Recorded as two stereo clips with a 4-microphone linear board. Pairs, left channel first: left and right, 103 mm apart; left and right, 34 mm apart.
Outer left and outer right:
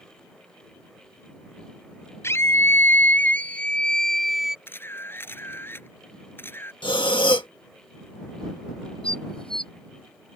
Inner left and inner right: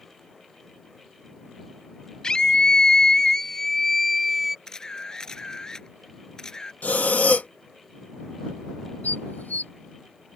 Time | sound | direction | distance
2.2 | a scream | 25° left (ahead or behind) | ?
4.7 | a camera shutter | 20° left (ahead or behind) | ?
6.8 | breathing | 50° left (ahead or behind) | ?
9.0 | dishes clattering | 60° left (ahead or behind) | ?